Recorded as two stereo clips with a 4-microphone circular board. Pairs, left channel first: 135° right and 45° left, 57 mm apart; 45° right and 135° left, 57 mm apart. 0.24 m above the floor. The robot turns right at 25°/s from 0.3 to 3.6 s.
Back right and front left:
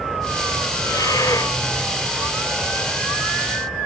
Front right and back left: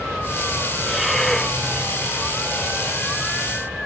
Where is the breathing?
140° right; by 1.6 s 120° right.